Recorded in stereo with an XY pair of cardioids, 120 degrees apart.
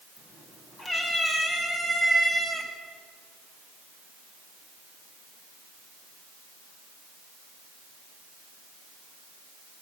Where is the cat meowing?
35° left, 5.5 m; by 2.7 s 20° left, 4 m.